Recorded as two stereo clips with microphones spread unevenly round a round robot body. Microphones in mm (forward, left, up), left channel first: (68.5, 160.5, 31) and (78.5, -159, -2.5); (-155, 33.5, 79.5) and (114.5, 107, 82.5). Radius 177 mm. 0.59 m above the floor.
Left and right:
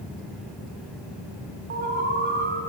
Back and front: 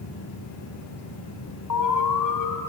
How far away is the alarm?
About 2.5 m.